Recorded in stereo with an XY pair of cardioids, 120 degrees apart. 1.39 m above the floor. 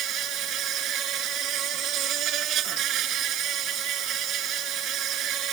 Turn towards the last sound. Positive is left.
turn(degrees=-65)